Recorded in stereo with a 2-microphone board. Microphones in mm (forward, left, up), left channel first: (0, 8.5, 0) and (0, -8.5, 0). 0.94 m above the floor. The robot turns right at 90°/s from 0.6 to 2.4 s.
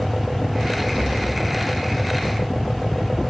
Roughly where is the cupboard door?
Behind.